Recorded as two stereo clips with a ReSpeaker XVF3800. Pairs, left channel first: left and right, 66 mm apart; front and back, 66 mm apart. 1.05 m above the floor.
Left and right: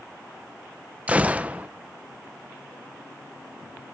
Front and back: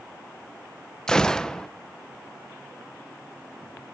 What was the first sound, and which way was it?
A gunshot, 60° right.